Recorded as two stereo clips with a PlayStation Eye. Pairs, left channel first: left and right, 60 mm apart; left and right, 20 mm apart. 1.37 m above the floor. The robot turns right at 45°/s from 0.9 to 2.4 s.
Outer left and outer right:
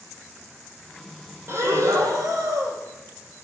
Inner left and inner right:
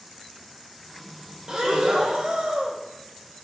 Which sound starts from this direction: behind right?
Breathing, at 1.5 s.